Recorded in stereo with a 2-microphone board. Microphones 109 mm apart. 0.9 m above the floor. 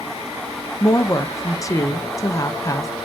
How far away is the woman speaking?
About 0.6 m.